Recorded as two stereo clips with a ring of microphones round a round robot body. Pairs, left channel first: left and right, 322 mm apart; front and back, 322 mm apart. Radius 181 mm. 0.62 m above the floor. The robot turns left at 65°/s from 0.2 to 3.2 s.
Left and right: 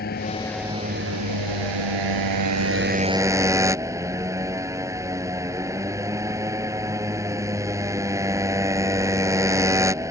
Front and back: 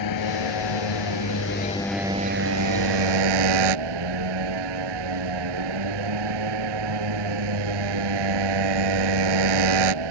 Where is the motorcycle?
25° left; by 10.1 s 170° right.